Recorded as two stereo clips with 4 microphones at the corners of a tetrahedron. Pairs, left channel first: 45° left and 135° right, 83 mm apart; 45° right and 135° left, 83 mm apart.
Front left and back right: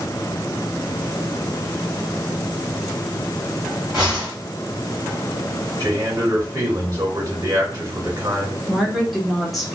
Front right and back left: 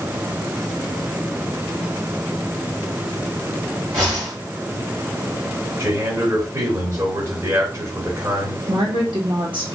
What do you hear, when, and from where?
3.9 s a whoosh: 140° left, 2.5 m
5.8 s a man speaking: straight behind, 2 m
8.7 s a woman speaking: 135° left, 1.1 m